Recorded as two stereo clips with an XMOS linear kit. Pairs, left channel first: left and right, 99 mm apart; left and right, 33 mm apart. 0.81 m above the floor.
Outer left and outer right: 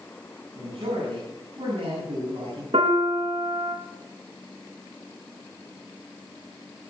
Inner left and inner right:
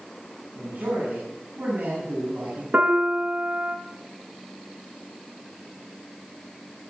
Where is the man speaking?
55° right (ahead or behind), 7.5 m.